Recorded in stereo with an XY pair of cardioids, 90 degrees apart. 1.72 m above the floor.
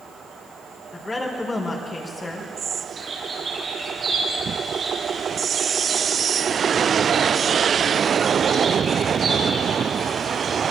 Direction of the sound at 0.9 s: 30° left.